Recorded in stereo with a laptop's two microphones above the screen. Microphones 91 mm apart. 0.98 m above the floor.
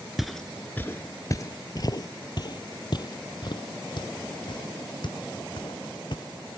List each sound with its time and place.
0.2 s footsteps: 5° right (ahead or behind); by 6.2 s 55° left (ahead or behind)